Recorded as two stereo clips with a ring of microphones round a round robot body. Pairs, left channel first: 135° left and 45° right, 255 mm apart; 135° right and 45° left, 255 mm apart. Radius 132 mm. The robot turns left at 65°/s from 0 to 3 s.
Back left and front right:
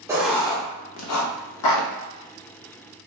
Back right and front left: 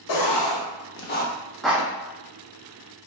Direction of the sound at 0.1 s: 125° right.